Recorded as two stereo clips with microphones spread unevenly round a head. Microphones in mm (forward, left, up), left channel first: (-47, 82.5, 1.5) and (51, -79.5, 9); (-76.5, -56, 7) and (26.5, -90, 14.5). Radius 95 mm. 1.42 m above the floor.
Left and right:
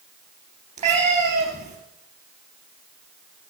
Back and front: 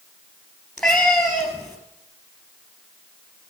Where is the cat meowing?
110° right, 3.5 m.